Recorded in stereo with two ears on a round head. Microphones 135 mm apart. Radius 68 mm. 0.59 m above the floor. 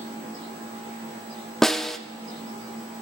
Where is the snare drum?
5° left (ahead or behind), 0.6 m.